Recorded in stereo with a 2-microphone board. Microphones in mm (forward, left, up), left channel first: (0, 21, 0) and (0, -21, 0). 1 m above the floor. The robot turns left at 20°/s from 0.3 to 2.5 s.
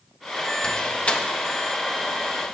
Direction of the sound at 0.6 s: 20° left (ahead or behind).